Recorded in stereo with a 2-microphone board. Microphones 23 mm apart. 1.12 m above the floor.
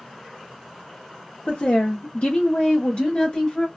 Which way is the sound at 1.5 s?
90° left.